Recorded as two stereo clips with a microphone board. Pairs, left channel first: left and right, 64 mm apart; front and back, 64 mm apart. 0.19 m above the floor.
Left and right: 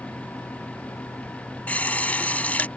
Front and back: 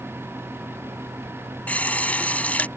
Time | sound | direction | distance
1.7 | a running tap | 45° left | ?